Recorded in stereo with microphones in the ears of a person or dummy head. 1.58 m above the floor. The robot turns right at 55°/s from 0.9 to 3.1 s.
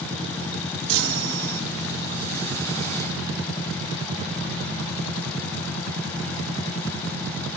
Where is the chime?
90° right; by 1.6 s 55° right.